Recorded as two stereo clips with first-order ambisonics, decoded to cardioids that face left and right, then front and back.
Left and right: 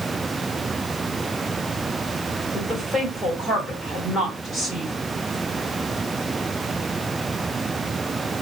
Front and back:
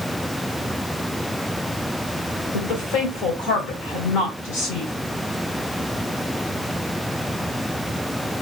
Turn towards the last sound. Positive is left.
turn(degrees=10)